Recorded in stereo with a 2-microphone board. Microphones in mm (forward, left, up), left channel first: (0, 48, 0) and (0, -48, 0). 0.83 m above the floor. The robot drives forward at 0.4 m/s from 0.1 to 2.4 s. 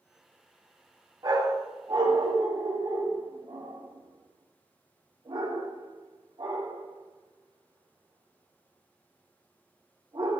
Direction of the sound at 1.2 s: 40° right (ahead or behind).